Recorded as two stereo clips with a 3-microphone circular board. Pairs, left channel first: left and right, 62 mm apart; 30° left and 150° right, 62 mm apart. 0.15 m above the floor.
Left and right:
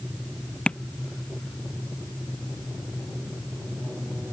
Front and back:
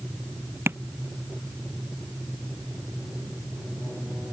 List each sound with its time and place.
0.7 s tapping: 160° left